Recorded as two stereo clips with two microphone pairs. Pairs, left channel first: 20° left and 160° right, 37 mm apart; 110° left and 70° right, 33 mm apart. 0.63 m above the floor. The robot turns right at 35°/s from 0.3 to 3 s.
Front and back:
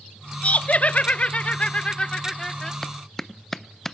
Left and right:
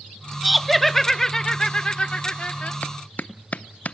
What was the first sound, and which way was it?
Laughter, 15° left.